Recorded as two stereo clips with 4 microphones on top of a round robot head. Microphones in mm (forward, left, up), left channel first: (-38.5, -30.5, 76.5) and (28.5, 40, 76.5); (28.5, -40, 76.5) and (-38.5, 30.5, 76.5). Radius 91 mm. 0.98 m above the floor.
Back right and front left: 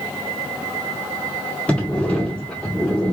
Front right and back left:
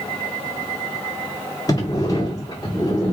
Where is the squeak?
I don't hear a squeak.